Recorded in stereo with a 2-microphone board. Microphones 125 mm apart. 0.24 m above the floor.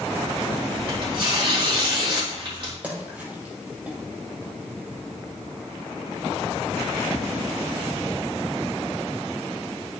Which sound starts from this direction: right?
Tearing paper, at 0.7 s.